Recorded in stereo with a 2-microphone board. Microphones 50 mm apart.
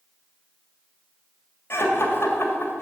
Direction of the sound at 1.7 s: 55° left (ahead or behind).